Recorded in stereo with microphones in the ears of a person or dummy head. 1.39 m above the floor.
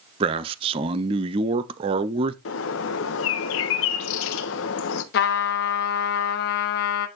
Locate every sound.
0.2 s a man speaking: 35° right (ahead or behind), 0.6 m
2.5 s a bird: 80° left, 0.9 m
5.1 s a trumpet: 60° left (ahead or behind), 1.1 m